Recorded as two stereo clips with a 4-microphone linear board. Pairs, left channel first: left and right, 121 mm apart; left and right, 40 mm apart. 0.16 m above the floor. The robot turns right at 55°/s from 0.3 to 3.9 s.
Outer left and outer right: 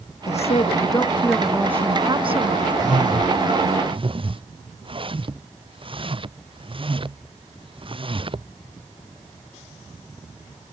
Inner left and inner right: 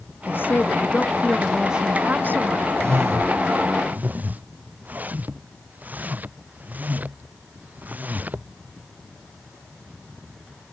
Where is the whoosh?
75° right (ahead or behind); by 8.5 s 45° right (ahead or behind).